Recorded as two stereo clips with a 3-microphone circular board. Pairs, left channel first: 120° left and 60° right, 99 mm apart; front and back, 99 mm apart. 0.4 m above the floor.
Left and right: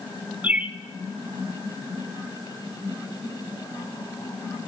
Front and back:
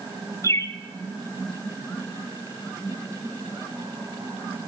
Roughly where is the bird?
Ahead.